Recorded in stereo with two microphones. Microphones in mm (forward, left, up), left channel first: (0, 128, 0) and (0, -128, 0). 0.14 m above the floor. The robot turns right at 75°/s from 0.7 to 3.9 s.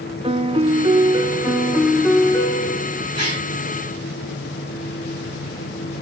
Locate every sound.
0.2 s a piano: 20° right (ahead or behind), 1.1 m; by 3.0 s 20° left (ahead or behind), 1.1 m
3.1 s a gasp: 80° right, 9 m; by 3.5 s 75° right (ahead or behind), 9 m